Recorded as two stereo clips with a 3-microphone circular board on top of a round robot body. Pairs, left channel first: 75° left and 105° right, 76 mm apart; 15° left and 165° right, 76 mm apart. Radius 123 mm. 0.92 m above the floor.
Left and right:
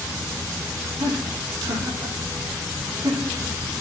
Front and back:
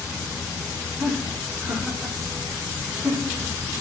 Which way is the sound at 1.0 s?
90° right.